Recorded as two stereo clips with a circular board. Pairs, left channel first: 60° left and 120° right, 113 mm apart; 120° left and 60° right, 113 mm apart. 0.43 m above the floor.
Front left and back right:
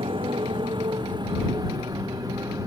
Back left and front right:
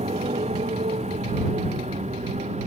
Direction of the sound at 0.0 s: 80° right.